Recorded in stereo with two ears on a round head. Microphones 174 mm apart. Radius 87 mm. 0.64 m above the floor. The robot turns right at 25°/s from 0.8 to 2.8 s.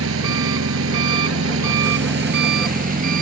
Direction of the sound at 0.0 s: 95° right.